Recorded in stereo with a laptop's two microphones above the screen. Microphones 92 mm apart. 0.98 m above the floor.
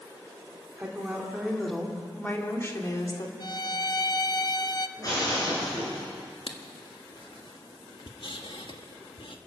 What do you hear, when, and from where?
0.8 s a woman speaking: 20° right (ahead or behind), 2 m; by 3.3 s 45° left (ahead or behind), 2 m
3.4 s a violin: 45° left (ahead or behind), 0.8 m
5.0 s breaking glass: 40° left (ahead or behind), 9 m
6.5 s writing: 65° left (ahead or behind), 1.3 m